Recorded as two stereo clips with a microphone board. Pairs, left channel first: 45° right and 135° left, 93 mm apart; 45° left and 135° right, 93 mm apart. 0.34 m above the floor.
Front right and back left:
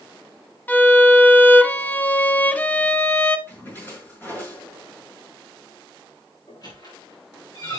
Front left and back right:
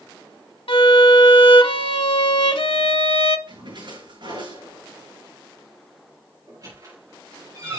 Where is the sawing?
I don't hear sawing.